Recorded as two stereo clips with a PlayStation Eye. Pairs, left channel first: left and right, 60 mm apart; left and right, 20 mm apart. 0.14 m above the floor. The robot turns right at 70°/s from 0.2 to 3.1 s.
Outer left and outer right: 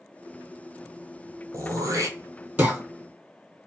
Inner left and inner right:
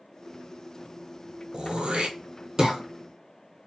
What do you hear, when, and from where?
1.5 s throat clearing: 70° right (ahead or behind), 0.8 m; by 2.8 s 15° right (ahead or behind), 0.8 m